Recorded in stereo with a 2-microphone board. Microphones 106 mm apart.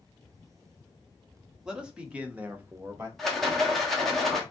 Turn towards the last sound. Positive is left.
turn(degrees=0)  # may be behind; listen again after turning